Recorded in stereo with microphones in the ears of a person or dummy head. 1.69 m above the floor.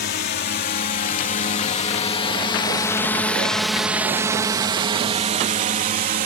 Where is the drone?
50° left (ahead or behind); by 6.3 s 45° right (ahead or behind).